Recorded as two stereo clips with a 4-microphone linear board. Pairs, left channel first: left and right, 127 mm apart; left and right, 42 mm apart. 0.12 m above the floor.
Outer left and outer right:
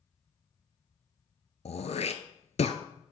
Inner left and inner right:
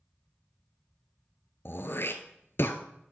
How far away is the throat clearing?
About 0.8 m.